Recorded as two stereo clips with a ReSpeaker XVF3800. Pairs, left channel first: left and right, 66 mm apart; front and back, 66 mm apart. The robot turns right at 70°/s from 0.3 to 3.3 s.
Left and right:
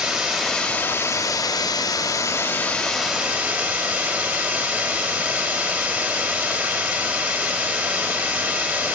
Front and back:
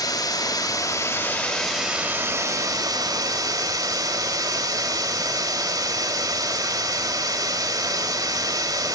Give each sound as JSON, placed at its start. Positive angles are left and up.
{"t": 0.0, "sound": "running water", "azimuth_deg": -10, "distance_m": 2.5}